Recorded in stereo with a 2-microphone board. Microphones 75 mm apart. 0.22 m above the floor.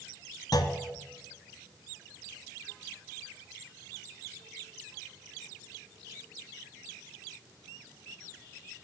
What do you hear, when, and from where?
0.5 s a clunk: 60° left (ahead or behind), 0.6 m